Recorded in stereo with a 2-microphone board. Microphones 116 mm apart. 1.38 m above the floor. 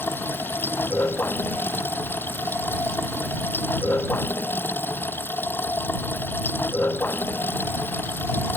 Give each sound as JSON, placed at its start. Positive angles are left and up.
{"t": 0.0, "sound": "running water", "side_deg": 20}